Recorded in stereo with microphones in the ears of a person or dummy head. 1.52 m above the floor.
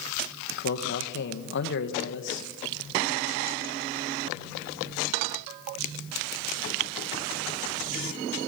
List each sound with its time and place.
0.5 s a man speaking: 60° left (ahead or behind), 1.8 m